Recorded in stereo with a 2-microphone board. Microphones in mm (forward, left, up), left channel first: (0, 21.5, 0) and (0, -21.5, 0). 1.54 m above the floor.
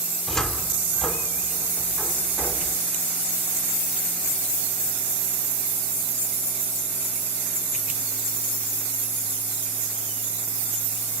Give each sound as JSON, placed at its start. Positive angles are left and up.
{"t": 0.3, "sound": "a cupboard door", "side_deg": 15, "distance_m": 2.0}